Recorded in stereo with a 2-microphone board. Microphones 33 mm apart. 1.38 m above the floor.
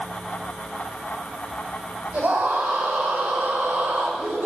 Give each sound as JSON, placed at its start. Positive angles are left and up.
{"t": 2.1, "sound": "a scream", "side_deg": -60, "distance_m": 7.5}